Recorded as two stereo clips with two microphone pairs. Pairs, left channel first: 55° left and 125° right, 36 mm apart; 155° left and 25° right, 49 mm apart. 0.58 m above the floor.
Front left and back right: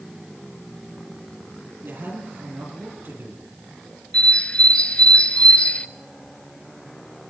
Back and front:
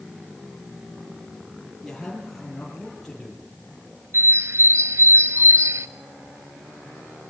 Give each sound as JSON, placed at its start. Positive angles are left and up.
{"t": 1.8, "sound": "a man speaking", "azimuth_deg": -115, "distance_m": 9.0}
{"t": 4.1, "sound": "a bird", "azimuth_deg": -5, "distance_m": 0.8}